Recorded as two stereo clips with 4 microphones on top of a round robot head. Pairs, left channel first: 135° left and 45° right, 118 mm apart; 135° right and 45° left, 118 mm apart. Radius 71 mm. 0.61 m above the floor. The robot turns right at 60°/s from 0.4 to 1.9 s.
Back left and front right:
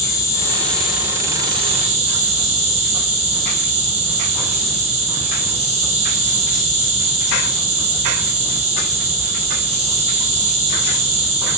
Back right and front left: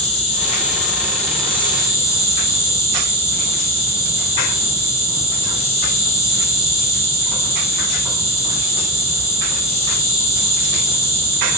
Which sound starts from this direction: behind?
An insect, at 0.0 s.